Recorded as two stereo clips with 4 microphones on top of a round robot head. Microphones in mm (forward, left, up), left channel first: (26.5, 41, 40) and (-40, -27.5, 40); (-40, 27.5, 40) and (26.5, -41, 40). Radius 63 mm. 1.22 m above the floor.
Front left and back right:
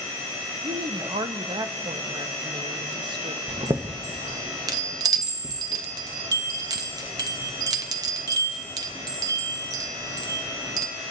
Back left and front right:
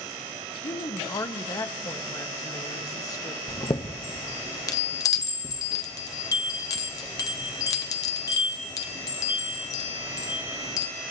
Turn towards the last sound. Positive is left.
turn(degrees=180)